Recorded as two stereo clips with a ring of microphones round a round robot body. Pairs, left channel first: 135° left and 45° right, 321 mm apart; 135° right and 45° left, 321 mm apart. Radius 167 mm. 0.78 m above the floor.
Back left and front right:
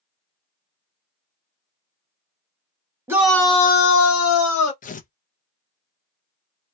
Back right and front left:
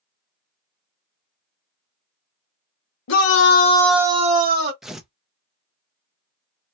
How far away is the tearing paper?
About 0.6 m.